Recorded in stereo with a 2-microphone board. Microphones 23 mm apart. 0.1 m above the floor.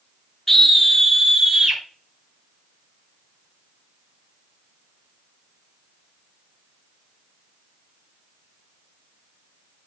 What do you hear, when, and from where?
0.5 s a scream: 20° left (ahead or behind), 1.2 m; by 1.8 s 25° right (ahead or behind), 1.4 m